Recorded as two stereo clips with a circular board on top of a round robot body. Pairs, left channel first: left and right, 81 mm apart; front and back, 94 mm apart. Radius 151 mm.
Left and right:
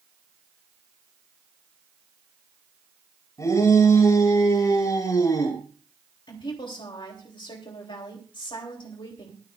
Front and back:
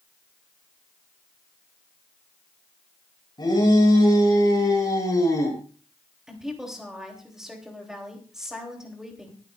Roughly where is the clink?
No clink in this recording.